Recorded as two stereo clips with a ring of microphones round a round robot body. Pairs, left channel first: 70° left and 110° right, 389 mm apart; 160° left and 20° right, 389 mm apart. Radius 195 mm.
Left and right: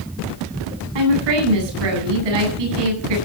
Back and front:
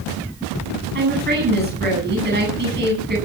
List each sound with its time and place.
0.9 s a woman speaking: 90° right, 9 m